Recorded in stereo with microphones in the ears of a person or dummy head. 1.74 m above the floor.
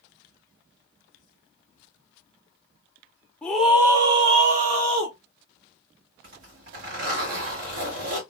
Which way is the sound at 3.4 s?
10° left (ahead or behind).